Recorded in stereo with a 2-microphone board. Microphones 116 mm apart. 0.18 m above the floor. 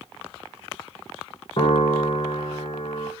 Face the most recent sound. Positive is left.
turn(degrees=50)  # may be behind; listen again after turning